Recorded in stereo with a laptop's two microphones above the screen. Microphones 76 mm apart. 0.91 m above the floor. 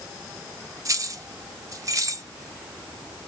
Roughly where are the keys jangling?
Right.